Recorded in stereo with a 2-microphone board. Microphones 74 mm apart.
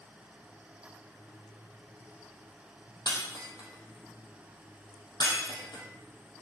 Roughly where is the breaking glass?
Left.